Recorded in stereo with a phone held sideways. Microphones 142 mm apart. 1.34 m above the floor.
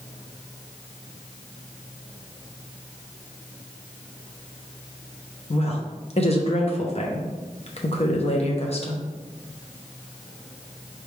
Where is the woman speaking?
45° left (ahead or behind), 0.7 m.